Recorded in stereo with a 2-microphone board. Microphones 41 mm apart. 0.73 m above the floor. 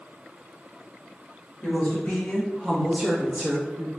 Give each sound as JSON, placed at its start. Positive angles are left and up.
{"t": 1.6, "sound": "a woman speaking", "side_deg": 45, "distance_m": 1.1}